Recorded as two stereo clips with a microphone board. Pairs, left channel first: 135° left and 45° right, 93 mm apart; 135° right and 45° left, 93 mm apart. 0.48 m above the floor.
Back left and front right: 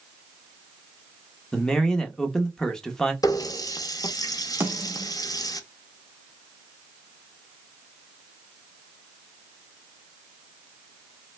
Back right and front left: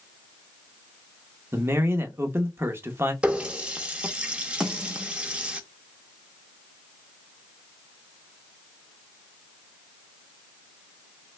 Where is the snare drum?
25° right, 1.1 m.